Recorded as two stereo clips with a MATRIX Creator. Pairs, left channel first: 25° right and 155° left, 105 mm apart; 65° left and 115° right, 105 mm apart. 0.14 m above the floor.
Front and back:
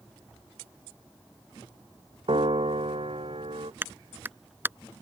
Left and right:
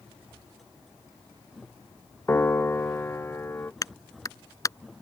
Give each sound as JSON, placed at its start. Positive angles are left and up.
{"t": 2.3, "sound": "a piano", "azimuth_deg": 135}
{"t": 3.8, "sound": "a clap", "azimuth_deg": 100}